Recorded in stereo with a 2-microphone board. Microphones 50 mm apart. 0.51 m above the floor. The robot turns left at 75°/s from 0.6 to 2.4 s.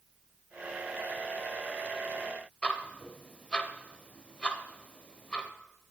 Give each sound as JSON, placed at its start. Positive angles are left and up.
{"t": 2.6, "sound": "ticking", "side_deg": 25, "distance_m": 0.6}